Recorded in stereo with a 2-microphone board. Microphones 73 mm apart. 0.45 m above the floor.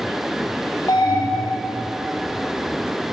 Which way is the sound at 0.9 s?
50° left (ahead or behind).